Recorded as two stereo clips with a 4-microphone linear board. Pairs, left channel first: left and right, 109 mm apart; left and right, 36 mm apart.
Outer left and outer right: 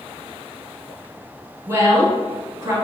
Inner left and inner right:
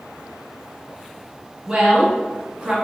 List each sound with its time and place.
1.7 s a woman speaking: 25° right (ahead or behind), 1.8 m